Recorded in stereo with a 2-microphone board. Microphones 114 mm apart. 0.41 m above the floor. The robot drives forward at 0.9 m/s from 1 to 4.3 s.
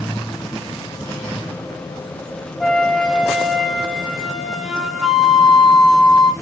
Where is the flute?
Centre (ahead or behind), 0.9 m.